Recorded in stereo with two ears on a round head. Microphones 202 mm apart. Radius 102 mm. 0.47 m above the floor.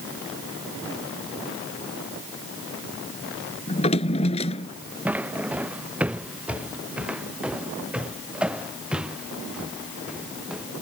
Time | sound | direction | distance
3.7 | a drawer | 30° left (ahead or behind) | ?
5.0 | footsteps | 5° right (ahead or behind) | ?